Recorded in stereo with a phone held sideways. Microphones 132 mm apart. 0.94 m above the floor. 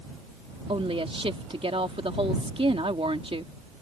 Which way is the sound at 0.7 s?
45° right (ahead or behind).